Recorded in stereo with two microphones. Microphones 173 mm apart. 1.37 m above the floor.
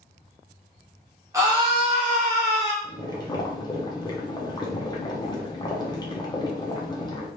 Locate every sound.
1.3 s a scream: 15° right (ahead or behind), 0.8 m; by 2.7 s 75° right (ahead or behind), 0.7 m
2.8 s boiling: 25° left (ahead or behind), 0.6 m